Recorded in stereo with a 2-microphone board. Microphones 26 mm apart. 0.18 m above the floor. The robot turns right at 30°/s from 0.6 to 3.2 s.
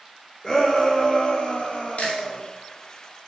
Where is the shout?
30° left, 5 m; by 2.4 s 85° left, 5 m.